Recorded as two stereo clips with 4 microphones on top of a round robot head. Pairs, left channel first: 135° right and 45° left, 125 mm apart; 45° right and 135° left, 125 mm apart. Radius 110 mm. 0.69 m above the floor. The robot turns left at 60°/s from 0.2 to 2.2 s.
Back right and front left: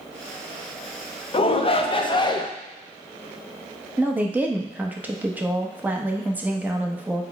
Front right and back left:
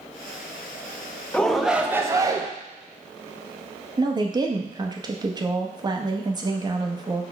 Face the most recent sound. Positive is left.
turn(degrees=110)